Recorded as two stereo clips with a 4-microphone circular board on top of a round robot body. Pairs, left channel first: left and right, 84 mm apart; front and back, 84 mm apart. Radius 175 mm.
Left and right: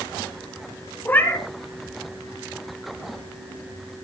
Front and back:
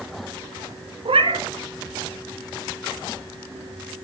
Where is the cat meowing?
160° left, 1.6 m.